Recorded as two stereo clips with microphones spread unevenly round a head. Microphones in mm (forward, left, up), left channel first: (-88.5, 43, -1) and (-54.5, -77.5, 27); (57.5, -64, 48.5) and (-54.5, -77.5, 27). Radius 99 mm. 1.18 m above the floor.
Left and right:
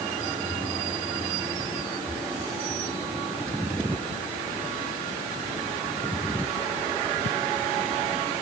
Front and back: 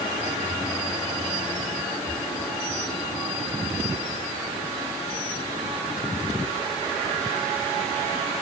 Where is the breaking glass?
No breaking glass in this recording.